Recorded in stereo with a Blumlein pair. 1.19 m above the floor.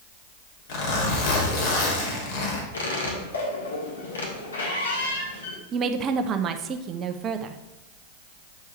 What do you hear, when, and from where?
0.7 s a zipper: 50° left, 2 m
2.7 s a squeak: 70° left, 1.9 m
5.7 s a woman speaking: 30° right, 0.8 m